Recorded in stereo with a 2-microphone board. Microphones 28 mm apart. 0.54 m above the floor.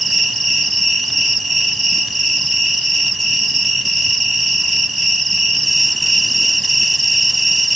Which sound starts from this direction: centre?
An insect, at 0.0 s.